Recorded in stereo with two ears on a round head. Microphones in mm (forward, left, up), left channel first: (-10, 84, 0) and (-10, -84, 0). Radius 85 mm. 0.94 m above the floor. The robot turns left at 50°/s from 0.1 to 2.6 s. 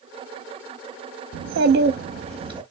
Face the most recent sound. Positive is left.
turn(degrees=-155)